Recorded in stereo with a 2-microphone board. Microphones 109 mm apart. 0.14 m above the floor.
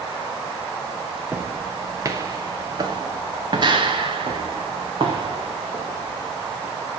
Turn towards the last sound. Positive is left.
turn(degrees=-60)  # may be behind; listen again after turning